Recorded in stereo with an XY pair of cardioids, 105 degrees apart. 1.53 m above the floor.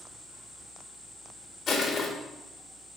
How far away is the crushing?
About 2.5 m.